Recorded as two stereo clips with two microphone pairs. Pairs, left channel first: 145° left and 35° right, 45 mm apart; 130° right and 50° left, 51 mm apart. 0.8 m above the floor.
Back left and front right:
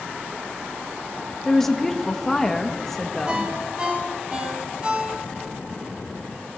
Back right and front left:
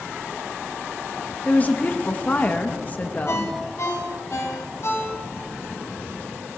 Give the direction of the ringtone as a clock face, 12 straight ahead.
3 o'clock.